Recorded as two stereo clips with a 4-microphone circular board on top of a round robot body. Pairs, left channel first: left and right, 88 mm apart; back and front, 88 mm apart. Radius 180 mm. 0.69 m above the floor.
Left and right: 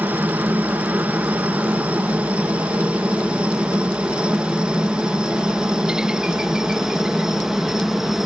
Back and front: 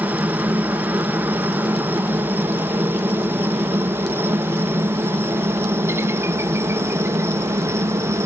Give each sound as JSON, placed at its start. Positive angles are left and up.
{"t": 0.0, "sound": "a helicopter", "azimuth_deg": -45}